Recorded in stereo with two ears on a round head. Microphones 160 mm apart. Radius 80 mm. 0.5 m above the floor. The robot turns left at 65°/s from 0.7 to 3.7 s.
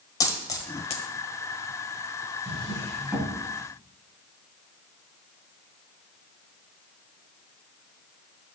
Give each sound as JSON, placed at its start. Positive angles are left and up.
{"t": 0.2, "sound": "a dropped coin", "side_deg": 20, "distance_m": 1.1}
{"t": 2.5, "sound": "a drawer", "side_deg": 45, "distance_m": 3.0}